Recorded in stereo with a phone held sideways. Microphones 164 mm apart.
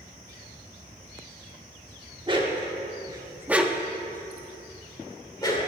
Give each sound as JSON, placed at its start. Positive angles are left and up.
{"t": 2.3, "sound": "a dog barking", "side_deg": -30, "distance_m": 1.0}